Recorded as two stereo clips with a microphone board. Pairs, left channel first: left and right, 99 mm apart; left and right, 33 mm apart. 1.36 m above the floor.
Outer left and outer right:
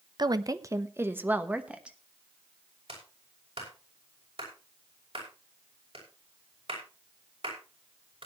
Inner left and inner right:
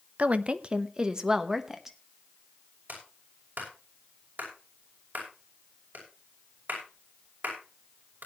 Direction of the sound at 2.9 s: 75° right (ahead or behind).